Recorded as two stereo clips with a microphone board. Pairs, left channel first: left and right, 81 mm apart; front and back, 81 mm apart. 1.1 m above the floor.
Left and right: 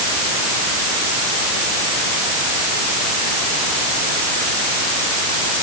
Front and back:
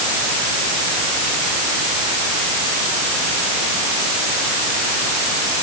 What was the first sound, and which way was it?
Only background noise.